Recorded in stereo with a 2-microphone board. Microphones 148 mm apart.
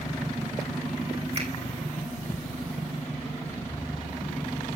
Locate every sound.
1.3 s a finger snap: 45° right (ahead or behind), 4.5 m